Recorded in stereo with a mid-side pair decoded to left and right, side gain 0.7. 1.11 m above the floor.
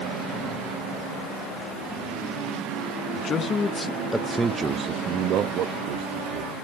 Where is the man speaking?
40° left, 1.2 m; by 6.5 s 70° right, 1.9 m.